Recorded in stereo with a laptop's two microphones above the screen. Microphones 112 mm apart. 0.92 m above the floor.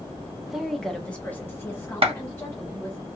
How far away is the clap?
About 0.8 m.